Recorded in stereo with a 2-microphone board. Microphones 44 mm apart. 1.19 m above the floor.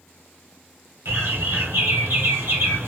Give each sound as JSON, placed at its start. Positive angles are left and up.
{"t": 1.1, "sound": "a bird", "side_deg": -65, "distance_m": 1.4}